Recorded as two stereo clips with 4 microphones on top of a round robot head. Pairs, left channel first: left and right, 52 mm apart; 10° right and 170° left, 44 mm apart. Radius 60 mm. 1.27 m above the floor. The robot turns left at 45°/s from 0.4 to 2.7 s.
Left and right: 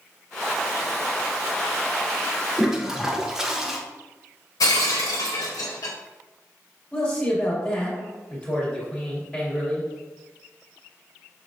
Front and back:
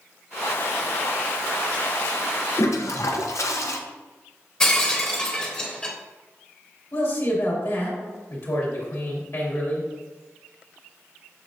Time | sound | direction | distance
2.6 | a toilet flushing | 5° right | 0.7 m
4.6 | breaking glass | 60° left | 1.0 m
6.9 | a man speaking | 15° left | 2.5 m